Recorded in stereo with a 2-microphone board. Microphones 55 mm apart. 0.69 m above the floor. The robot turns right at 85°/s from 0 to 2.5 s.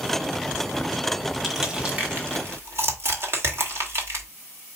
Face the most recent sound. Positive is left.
turn(degrees=-50)  # may be behind; listen again after turning